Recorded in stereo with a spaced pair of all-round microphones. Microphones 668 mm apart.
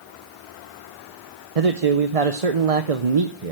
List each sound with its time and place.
1.6 s a man speaking: 60° right (ahead or behind), 0.8 m